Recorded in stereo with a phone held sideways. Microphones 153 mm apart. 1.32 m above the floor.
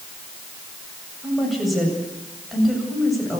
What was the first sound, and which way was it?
A woman speaking, centre (ahead or behind).